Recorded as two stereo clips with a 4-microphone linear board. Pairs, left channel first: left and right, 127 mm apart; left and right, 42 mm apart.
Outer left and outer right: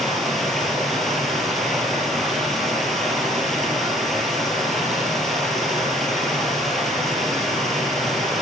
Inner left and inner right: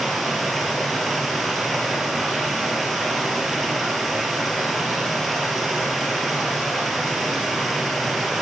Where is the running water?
Centre (ahead or behind), 4 m.